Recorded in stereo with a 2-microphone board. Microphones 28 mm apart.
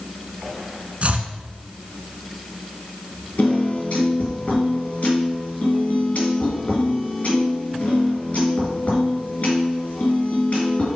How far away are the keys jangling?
No keys jangling in this recording.